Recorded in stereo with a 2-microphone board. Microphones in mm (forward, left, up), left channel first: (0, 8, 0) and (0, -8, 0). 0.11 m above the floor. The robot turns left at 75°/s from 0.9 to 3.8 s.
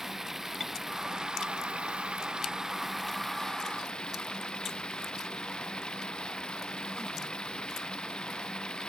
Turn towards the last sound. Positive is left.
turn(degrees=125)